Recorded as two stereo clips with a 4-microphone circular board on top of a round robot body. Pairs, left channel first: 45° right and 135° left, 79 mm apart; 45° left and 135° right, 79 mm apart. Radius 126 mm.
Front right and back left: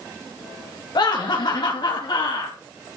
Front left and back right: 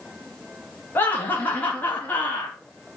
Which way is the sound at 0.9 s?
20° right.